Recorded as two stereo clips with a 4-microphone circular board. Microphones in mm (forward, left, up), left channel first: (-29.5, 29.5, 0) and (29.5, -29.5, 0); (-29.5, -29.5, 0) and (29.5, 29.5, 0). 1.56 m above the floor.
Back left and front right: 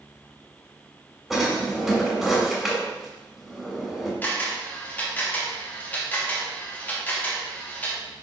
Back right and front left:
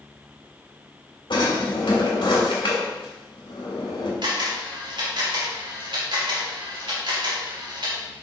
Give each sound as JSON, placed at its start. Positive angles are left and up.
{"t": 1.3, "sound": "a drawer", "azimuth_deg": -135, "distance_m": 3.0}
{"t": 4.2, "sound": "a camera shutter", "azimuth_deg": 65, "distance_m": 2.5}